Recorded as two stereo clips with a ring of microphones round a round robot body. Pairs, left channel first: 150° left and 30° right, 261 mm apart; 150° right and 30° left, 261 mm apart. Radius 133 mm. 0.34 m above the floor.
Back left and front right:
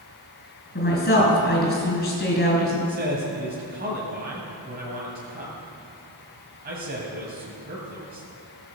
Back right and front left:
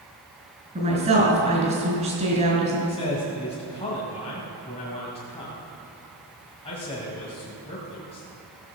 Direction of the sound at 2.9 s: 85° right.